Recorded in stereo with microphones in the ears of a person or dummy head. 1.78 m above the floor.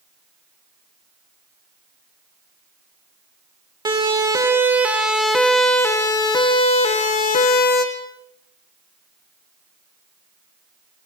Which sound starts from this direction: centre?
A siren, at 3.9 s.